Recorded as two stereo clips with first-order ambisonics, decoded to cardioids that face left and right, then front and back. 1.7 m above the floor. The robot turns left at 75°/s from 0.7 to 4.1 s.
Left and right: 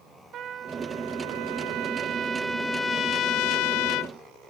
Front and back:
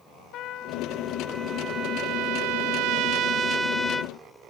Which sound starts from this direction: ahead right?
A trumpet, at 0.3 s.